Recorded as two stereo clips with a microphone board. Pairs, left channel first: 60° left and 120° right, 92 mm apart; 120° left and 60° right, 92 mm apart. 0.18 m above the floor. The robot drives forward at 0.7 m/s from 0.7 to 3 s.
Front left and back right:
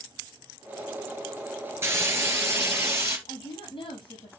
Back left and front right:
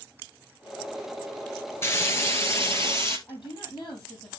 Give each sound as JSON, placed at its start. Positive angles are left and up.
{"t": 1.8, "sound": "frying", "azimuth_deg": 180, "distance_m": 1.9}
{"t": 3.3, "sound": "a woman speaking", "azimuth_deg": 85, "distance_m": 4.5}